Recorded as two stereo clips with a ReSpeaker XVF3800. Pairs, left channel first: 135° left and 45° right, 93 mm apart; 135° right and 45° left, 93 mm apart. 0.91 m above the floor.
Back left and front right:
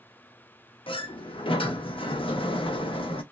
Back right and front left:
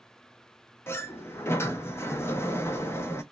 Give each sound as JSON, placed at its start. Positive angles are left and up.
{"t": 0.9, "sound": "a sliding door", "azimuth_deg": 160, "distance_m": 0.5}